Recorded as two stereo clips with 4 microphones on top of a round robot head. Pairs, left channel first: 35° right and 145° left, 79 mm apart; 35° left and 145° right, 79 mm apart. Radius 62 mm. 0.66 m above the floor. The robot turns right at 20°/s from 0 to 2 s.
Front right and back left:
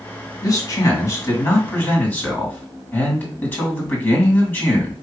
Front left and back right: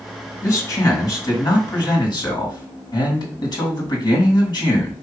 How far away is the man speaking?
About 2 m.